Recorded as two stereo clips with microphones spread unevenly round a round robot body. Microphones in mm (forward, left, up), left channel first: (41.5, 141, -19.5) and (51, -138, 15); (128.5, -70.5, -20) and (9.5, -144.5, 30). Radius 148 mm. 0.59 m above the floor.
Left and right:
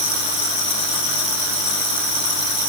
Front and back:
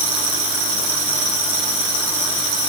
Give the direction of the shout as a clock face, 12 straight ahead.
I don't hear a shout.